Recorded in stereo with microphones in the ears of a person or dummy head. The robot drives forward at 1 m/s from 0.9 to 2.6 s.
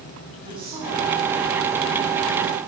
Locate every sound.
0.4 s a woman speaking: 30° right (ahead or behind), 10 m; by 2.6 s 25° right (ahead or behind), 11.5 m